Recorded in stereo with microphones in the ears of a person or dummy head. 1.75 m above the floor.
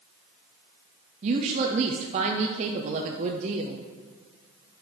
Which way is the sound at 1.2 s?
40° right (ahead or behind).